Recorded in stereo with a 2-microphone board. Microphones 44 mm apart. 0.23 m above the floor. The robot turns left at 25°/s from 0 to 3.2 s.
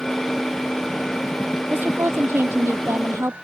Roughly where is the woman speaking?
Ahead right.